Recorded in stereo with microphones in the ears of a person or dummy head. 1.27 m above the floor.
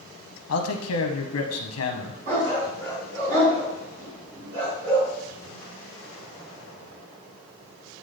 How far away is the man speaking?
About 0.7 m.